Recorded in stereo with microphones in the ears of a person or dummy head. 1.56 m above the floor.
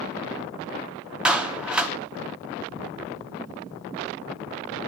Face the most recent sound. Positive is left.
turn(degrees=-5)  # may be behind; listen again after turning